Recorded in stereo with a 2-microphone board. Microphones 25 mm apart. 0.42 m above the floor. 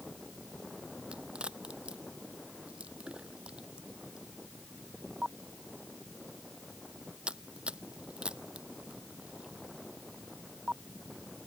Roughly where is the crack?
Right.